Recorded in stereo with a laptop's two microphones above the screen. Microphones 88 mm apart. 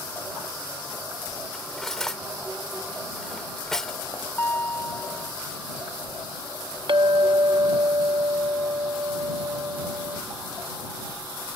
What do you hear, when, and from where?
1.5 s cutlery clinking: 5° left (ahead or behind)
4.4 s a guitar: 25° left (ahead or behind)
6.9 s a clink: 65° right (ahead or behind)